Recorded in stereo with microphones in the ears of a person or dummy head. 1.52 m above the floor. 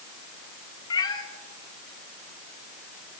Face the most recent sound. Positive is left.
turn(degrees=20)  # may be behind; listen again after turning